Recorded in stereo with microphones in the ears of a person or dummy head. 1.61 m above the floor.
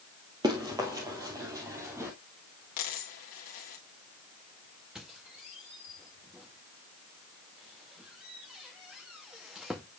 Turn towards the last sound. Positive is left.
turn(degrees=0)  # may be behind; listen again after turning